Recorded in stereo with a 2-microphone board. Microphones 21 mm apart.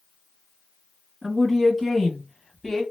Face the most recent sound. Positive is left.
turn(degrees=20)  # may be behind; listen again after turning